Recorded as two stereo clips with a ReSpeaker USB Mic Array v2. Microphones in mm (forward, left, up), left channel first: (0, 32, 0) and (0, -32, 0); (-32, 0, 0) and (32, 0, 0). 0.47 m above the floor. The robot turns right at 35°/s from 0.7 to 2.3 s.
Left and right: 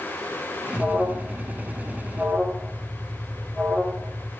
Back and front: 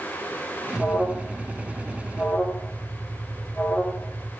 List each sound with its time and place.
0.8 s an alarm: 90° left, 1.5 m; by 4.3 s 145° left, 1.5 m